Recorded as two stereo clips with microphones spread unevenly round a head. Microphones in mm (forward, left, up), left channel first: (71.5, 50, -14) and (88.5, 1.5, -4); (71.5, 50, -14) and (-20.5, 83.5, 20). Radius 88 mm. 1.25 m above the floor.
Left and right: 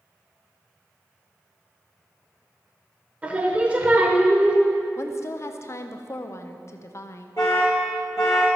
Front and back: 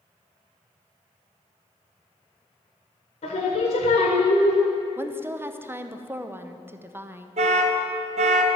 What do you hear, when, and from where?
3.2 s singing: 25° right, 1.3 m
5.0 s a woman speaking: 85° left, 0.7 m
7.4 s an alarm: 170° left, 1.2 m